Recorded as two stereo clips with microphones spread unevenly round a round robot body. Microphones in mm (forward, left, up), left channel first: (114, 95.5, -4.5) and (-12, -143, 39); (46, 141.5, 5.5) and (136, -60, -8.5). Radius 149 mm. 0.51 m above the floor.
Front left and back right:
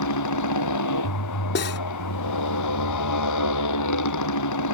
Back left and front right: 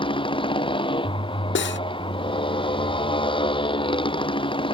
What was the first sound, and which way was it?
A motorcycle, 45° left.